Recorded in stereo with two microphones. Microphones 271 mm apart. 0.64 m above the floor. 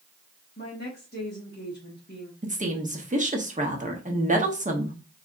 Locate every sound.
0.6 s a woman speaking: 35° left (ahead or behind), 1.3 m
2.4 s a woman speaking: 30° right (ahead or behind), 1.1 m